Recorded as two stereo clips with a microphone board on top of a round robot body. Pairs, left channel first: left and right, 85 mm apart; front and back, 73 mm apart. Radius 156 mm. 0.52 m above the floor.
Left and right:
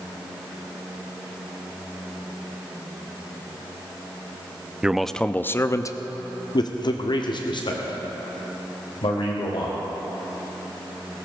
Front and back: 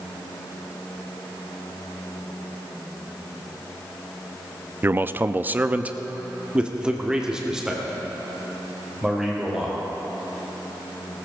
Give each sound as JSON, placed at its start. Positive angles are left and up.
{"t": 4.8, "sound": "a man speaking", "azimuth_deg": -160, "distance_m": 0.7}